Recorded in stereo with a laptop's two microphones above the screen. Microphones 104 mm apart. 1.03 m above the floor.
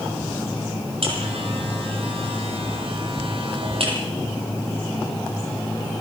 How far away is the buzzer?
About 8 m.